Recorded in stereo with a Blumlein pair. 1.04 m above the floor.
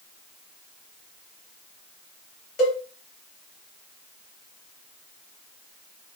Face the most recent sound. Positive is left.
turn(degrees=45)